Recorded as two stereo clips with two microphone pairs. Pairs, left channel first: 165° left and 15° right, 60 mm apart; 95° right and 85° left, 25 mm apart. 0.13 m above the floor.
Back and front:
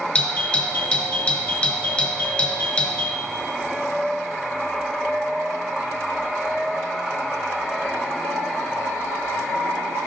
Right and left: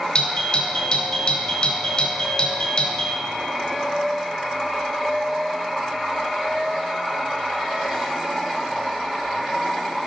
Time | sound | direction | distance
0.1 | a doorbell | 125° right | 2 m